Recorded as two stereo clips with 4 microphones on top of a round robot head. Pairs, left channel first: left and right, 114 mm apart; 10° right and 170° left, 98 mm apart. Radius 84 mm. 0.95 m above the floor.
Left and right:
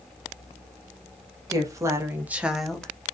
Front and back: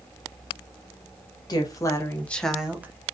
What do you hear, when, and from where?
1.5 s a woman speaking: 40° right, 0.8 m; by 3.1 s 155° left, 0.6 m